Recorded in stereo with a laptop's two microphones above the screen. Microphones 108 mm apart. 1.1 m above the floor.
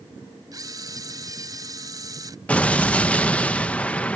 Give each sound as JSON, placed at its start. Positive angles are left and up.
{"t": 0.5, "sound": "a camera shutter", "side_deg": -35}
{"t": 2.5, "sound": "an explosion", "side_deg": 10}